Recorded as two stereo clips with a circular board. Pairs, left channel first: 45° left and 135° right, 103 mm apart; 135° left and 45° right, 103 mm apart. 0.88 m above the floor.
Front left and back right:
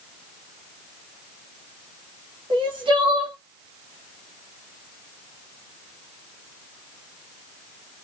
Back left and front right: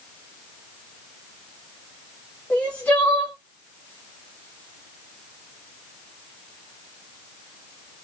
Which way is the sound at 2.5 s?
150° right.